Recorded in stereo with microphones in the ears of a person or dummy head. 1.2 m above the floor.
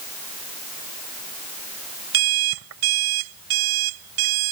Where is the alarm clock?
80° right.